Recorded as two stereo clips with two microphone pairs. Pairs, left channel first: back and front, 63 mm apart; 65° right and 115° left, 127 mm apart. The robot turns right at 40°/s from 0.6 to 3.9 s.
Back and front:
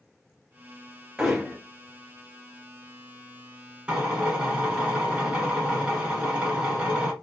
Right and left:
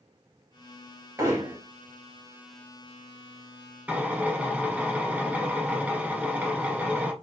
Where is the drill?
50° left, 1.0 m.